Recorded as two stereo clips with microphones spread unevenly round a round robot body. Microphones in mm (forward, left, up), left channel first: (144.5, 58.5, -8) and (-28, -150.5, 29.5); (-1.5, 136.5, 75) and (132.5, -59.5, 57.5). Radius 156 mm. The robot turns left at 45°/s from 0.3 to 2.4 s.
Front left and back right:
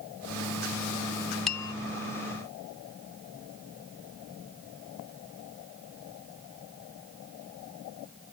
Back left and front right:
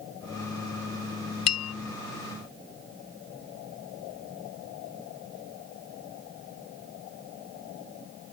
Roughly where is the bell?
Behind left.